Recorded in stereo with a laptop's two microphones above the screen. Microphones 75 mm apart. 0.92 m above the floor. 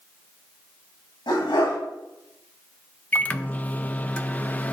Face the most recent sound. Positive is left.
turn(degrees=20)  # may be behind; listen again after turning